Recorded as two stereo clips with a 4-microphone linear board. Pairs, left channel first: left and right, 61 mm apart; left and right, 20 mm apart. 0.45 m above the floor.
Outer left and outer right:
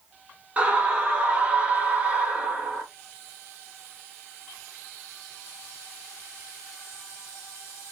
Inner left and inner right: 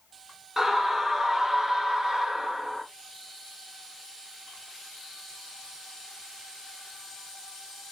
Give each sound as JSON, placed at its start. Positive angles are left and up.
{"t": 0.6, "sound": "a scream", "side_deg": -20, "distance_m": 0.8}